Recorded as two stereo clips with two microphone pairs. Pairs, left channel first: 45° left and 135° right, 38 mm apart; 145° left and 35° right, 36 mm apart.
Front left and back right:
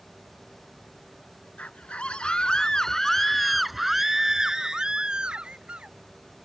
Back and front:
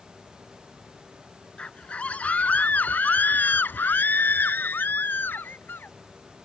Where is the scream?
90° left; by 6.0 s 160° left.